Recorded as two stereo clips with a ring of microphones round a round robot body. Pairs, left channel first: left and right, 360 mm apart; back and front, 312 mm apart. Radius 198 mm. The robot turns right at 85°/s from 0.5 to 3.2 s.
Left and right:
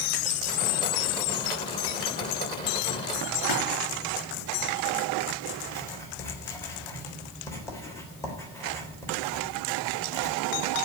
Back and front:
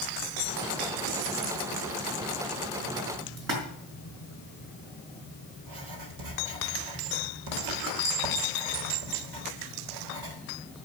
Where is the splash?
25° left, 5 m.